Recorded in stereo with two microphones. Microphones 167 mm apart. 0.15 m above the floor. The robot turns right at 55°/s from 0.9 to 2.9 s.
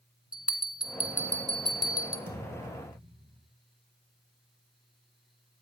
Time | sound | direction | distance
0.3 | a bell | 5° right (ahead or behind) | 1.5 m
2.3 | a thud | 55° right | 4 m